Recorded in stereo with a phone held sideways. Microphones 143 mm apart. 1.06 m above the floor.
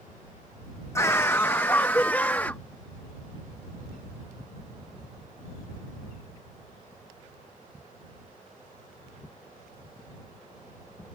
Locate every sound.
0.9 s a scream: 20° left (ahead or behind); by 2.6 s 15° left (ahead or behind)